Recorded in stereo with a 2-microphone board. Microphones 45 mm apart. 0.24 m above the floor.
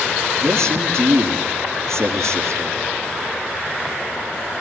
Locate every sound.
0.4 s a man speaking: 75° right (ahead or behind), 6.5 m